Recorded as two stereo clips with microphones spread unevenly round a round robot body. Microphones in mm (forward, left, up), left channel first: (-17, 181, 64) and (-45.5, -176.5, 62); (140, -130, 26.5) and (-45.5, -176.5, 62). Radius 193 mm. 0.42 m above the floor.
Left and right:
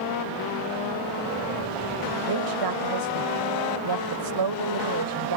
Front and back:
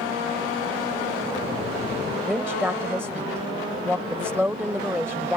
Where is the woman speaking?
80° right.